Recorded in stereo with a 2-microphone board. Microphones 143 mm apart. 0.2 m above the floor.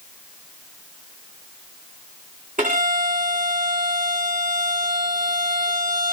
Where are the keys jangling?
No keys jangling in this recording.